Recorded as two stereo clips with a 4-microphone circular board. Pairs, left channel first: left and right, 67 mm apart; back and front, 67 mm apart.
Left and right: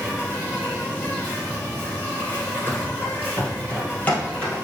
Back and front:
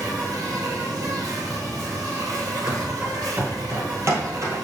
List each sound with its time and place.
0.0 s an insect: 25° left, 3 m
2.7 s running footsteps: 70° left, 1.5 m; by 4.6 s 25° left, 2.5 m